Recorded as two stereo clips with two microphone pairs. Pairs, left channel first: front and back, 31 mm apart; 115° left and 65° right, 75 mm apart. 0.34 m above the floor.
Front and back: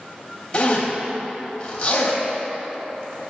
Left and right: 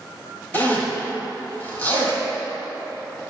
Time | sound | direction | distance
0.5 | a zipper | 50° left | 2.5 m